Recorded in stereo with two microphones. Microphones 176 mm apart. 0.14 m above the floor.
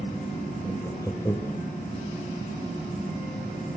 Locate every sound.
0.6 s laughter: 20° left (ahead or behind), 3.5 m